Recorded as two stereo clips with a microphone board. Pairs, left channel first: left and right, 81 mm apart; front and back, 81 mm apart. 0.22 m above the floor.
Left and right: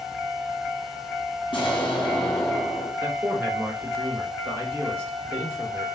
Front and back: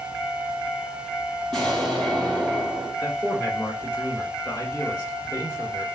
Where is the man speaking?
40° right, 2 m.